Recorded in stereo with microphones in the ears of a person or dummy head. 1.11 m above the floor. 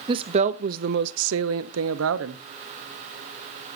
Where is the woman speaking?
30° right (ahead or behind), 1.1 m; by 2.4 s 70° right (ahead or behind), 1.3 m.